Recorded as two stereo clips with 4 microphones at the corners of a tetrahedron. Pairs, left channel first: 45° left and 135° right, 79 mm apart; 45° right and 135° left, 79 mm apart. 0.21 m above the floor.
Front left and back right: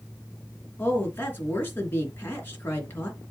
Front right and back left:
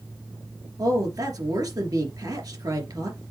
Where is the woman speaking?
105° left, 3 m.